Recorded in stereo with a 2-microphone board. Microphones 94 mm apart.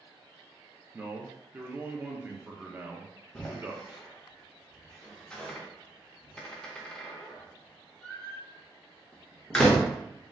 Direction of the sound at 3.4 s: 10° left (ahead or behind).